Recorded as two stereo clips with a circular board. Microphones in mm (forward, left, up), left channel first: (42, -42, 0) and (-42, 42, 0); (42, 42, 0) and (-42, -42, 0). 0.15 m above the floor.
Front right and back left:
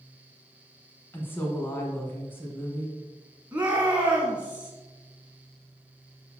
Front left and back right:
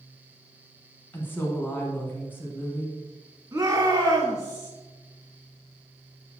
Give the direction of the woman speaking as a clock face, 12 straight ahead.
12 o'clock.